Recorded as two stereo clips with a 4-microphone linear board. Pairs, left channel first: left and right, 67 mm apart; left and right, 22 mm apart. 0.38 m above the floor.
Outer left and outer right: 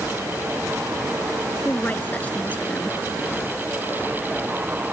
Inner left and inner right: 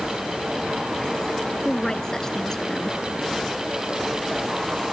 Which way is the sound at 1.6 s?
25° left (ahead or behind).